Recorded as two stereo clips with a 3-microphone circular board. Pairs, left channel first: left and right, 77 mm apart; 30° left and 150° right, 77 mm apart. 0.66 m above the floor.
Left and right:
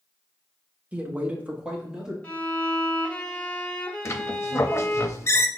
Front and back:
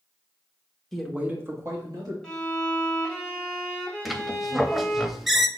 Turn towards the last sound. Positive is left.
turn(degrees=125)